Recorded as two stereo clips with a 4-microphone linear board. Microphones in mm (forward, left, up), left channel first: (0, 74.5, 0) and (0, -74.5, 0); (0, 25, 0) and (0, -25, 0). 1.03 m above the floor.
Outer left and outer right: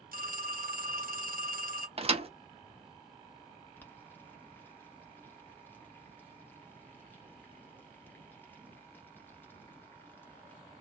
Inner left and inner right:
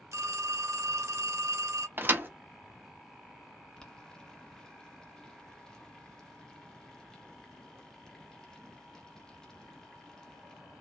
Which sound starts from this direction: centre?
Boiling, at 3.8 s.